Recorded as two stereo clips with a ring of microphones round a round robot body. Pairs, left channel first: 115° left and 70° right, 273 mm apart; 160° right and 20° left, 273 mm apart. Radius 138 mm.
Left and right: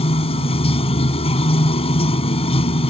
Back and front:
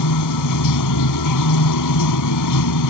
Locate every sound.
0.0 s running water: straight behind